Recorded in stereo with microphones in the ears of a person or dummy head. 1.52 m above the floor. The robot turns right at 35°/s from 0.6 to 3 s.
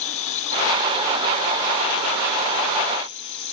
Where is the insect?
35° left; by 3.5 s 120° left.